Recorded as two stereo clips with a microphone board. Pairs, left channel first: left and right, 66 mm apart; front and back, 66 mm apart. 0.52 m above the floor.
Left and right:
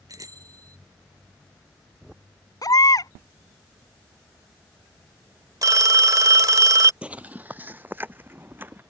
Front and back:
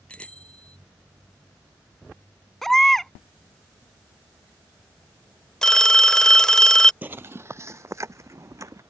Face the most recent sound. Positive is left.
turn(degrees=-145)